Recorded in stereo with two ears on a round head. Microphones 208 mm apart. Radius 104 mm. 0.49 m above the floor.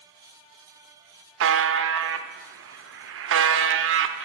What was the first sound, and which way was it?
A buzzer, 55° right (ahead or behind).